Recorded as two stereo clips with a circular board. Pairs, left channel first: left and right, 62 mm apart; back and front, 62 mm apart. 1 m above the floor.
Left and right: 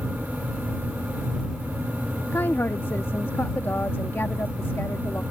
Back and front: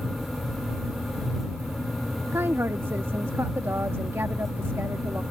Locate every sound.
2.3 s a woman speaking: 40° left